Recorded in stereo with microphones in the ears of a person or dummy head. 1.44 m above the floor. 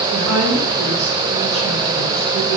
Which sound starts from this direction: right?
A woman speaking, at 0.1 s.